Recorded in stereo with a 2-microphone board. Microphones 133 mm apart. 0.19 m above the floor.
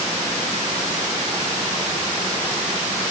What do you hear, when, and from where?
Only background noise.